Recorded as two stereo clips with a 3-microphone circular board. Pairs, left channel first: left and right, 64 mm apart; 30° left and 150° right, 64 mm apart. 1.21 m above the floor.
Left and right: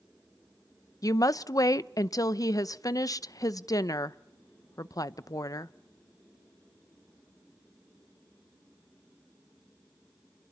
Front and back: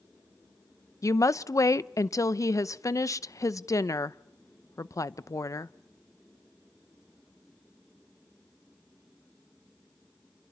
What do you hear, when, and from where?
1.0 s a woman speaking: 65° left, 0.6 m